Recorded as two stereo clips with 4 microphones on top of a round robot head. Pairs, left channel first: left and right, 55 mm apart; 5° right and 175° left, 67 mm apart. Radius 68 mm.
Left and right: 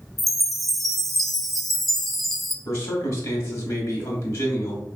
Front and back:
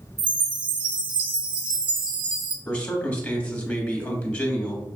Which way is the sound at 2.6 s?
65° left.